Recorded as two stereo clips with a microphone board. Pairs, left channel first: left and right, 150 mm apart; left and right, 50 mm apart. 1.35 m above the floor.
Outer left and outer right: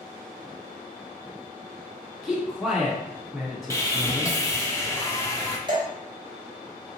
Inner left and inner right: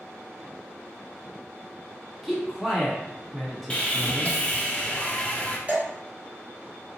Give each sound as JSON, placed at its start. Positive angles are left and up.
{"t": 2.2, "sound": "a man speaking", "side_deg": -10, "distance_m": 1.5}
{"t": 3.7, "sound": "sawing", "side_deg": 20, "distance_m": 0.6}
{"t": 5.7, "sound": "dripping", "side_deg": -30, "distance_m": 1.0}